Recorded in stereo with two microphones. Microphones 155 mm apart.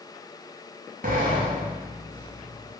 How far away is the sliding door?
About 0.6 m.